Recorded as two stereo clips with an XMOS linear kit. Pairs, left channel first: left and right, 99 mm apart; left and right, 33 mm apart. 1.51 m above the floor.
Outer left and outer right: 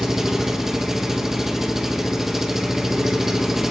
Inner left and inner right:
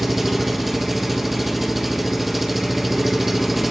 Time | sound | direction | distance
0.0 | an engine running | 5° right (ahead or behind) | 1.0 m